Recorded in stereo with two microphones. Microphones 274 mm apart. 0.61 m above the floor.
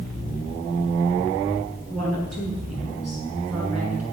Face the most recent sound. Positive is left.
turn(degrees=-60)  # may be behind; listen again after turning